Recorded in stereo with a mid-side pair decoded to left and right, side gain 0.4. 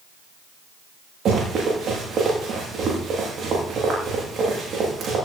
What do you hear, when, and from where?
1.2 s running footsteps: 65° right, 9 m